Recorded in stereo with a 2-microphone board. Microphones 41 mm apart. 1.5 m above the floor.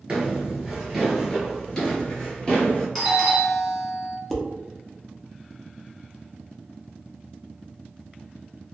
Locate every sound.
0.1 s footsteps: 20° right (ahead or behind), 1.6 m; by 2.9 s 30° left (ahead or behind), 1.7 m
3.0 s a doorbell: 5° left (ahead or behind), 0.9 m
4.3 s dishes clattering: 5° left (ahead or behind), 0.5 m